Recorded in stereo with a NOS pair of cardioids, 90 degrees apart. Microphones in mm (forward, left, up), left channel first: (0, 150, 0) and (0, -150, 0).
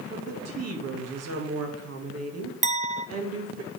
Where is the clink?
25° right, 1.0 m.